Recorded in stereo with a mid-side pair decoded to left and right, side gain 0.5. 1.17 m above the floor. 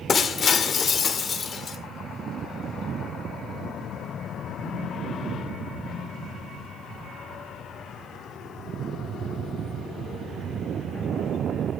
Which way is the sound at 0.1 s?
40° left.